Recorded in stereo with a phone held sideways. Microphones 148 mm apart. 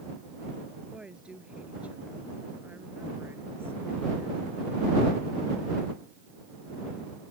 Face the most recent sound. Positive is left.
turn(degrees=-20)  # may be behind; listen again after turning